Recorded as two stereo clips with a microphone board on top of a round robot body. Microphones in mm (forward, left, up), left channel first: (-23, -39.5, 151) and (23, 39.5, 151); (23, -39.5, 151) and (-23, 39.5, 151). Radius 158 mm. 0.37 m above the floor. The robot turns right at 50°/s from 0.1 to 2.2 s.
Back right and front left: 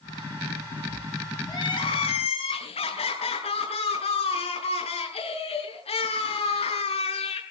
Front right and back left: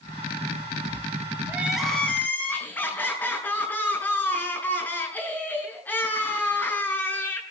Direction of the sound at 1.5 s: 170° right.